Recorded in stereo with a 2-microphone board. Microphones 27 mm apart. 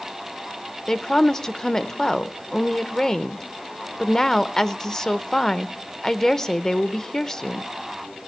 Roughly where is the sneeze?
I don't hear a sneeze.